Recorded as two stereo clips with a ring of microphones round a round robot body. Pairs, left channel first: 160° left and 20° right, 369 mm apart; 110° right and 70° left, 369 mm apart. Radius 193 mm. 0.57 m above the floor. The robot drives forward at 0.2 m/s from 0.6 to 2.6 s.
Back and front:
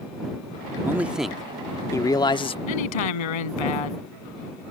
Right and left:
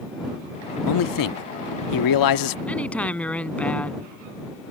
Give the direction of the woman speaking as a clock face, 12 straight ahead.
7 o'clock.